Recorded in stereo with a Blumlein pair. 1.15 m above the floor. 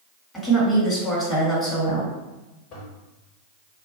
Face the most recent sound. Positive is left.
turn(degrees=35)